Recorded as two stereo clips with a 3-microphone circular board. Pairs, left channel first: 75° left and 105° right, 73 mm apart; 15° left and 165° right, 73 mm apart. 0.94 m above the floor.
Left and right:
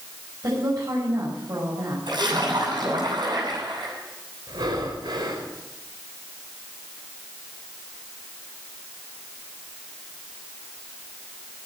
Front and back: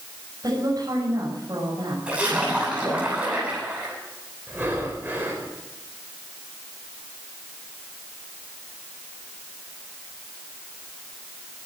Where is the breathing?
100° right, 4.5 m.